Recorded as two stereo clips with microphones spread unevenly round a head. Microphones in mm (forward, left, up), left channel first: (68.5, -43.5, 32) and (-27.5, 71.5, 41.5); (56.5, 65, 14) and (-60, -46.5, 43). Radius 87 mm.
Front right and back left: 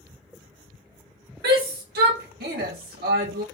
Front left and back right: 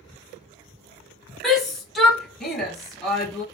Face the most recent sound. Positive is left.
turn(degrees=130)